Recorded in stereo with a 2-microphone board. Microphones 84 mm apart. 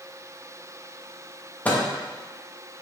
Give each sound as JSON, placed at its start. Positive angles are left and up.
{"t": 1.6, "sound": "a microwave", "side_deg": 20, "distance_m": 0.6}